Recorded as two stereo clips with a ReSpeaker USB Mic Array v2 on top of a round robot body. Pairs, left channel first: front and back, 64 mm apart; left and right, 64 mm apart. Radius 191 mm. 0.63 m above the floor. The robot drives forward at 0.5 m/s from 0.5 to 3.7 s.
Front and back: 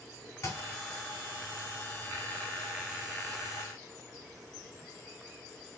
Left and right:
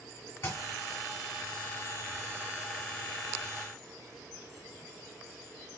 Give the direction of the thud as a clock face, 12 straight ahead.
11 o'clock.